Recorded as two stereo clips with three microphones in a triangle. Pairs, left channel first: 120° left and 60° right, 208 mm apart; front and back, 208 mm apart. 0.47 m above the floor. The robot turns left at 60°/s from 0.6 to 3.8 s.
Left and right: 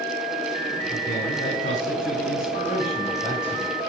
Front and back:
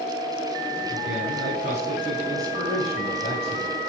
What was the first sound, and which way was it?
A man speaking, straight behind.